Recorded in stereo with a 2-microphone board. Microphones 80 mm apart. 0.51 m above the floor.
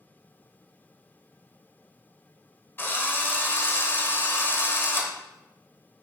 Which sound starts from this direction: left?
A drill, at 2.8 s.